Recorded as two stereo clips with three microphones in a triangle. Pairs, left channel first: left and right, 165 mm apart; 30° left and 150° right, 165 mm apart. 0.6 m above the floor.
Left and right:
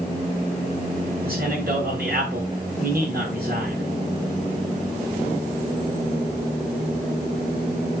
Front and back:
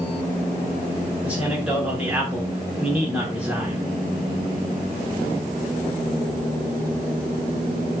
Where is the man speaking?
70° right, 6.5 m.